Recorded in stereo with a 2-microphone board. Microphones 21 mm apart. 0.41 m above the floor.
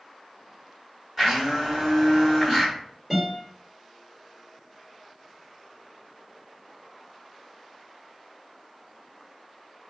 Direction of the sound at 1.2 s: 10° right (ahead or behind).